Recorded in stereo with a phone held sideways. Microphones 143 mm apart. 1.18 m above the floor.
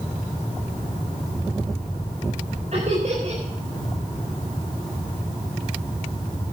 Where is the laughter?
55° right (ahead or behind), 4 m.